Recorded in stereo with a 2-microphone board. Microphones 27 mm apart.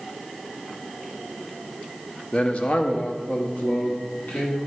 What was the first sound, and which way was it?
A man speaking, 40° left (ahead or behind).